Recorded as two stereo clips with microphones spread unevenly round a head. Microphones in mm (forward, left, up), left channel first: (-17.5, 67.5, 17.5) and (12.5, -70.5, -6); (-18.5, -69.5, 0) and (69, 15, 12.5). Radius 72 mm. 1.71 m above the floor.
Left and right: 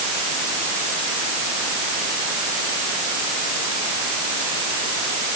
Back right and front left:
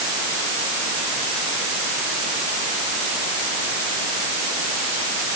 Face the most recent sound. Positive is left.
No sound to turn to.